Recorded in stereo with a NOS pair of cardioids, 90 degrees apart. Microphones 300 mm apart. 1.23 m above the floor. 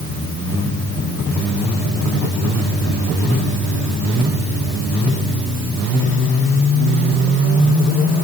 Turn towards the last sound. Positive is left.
No sound to turn to.